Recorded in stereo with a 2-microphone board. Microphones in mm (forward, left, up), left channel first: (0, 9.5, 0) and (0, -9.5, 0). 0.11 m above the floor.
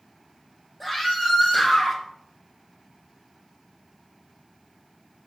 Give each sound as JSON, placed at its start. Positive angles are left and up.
{"t": 0.8, "sound": "a scream", "side_deg": -5, "distance_m": 3.5}